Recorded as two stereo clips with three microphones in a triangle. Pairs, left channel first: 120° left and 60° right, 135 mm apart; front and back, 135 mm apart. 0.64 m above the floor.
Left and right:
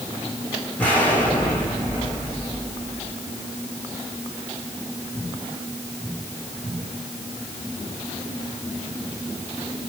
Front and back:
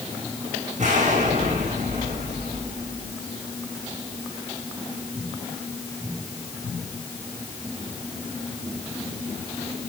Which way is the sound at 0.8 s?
160° right.